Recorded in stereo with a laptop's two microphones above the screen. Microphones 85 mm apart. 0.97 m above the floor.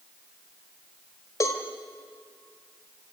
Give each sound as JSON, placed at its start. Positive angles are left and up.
{"t": 1.4, "sound": "a cowbell", "side_deg": 40, "distance_m": 1.8}